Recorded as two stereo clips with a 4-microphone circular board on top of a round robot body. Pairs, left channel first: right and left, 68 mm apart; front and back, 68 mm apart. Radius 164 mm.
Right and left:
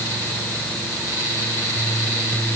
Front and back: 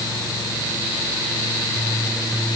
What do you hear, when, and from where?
Only background noise.